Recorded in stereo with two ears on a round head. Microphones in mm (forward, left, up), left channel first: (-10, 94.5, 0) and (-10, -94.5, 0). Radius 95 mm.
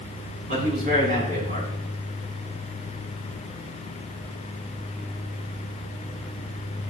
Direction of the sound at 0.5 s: 40° right (ahead or behind).